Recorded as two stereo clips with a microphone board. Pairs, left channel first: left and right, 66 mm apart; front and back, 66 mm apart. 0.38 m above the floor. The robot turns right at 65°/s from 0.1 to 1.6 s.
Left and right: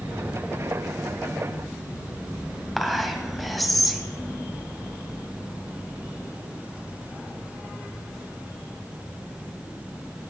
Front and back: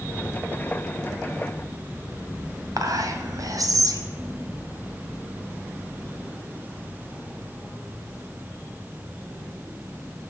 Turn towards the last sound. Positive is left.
turn(degrees=180)